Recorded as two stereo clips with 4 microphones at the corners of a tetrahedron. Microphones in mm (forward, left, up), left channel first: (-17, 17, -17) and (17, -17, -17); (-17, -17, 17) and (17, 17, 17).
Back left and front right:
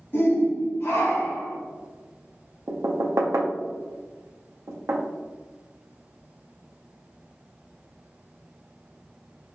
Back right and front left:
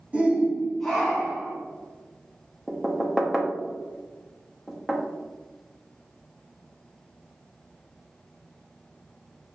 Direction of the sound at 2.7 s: 40° right.